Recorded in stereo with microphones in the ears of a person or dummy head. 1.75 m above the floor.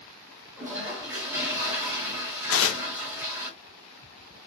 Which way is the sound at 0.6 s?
10° right (ahead or behind).